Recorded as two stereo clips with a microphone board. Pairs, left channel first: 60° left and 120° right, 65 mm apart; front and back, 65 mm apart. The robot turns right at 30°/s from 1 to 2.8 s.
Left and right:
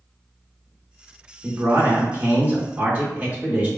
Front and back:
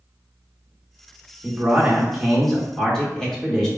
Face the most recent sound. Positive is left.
turn(degrees=-80)